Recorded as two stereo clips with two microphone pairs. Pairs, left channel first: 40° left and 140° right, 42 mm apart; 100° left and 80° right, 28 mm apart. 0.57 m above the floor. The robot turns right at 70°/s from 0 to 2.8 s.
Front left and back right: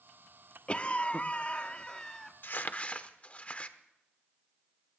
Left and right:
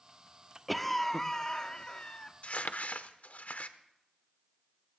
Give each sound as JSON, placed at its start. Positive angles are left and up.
{"t": 0.7, "sound": "a cough", "azimuth_deg": 10, "distance_m": 0.7}
{"t": 2.4, "sound": "crumpling", "azimuth_deg": 70, "distance_m": 0.8}